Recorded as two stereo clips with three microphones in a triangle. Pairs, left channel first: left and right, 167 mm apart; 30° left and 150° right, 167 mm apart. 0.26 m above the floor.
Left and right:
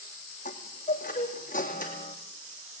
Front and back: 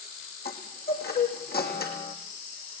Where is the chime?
50° left, 3 m.